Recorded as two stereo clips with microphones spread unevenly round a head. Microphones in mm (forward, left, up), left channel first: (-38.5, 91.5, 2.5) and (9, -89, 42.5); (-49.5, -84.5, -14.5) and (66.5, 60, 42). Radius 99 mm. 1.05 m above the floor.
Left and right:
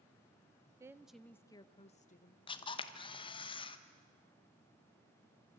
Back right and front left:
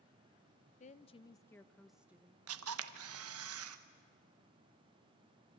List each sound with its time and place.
0.8 s a woman speaking: 155° right, 0.9 m; by 2.4 s 135° left, 1.2 m
2.5 s a camera shutter: 50° left, 1.1 m